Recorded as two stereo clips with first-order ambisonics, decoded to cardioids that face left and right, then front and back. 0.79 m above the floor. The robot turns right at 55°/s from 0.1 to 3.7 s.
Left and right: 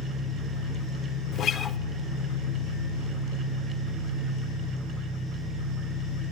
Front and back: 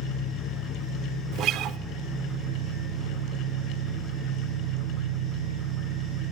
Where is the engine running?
10° right, 6.5 m; by 6.3 s 170° right, 6.5 m.